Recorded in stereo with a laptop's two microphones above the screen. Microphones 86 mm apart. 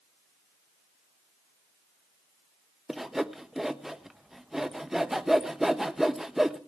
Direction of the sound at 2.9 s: 5° right (ahead or behind).